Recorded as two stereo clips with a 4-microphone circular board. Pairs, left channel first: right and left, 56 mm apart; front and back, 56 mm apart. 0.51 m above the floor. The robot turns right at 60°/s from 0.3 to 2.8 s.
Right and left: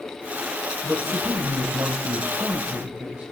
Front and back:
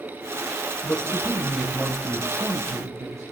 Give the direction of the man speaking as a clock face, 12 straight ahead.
11 o'clock.